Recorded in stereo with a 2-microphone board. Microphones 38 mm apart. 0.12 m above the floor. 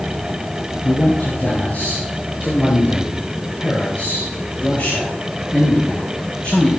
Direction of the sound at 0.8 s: 45° left (ahead or behind).